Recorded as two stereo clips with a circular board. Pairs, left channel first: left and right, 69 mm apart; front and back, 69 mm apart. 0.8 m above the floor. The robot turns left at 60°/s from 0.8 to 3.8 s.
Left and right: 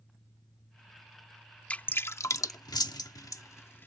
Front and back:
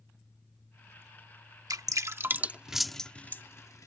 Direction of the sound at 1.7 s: 160° left.